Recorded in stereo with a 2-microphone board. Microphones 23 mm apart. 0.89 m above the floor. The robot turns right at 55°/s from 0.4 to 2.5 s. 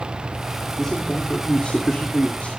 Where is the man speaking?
5° left, 1.9 m; by 2.6 s 100° left, 1.9 m.